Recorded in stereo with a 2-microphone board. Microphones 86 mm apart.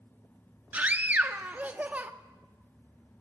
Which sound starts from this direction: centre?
A scream, at 0.7 s.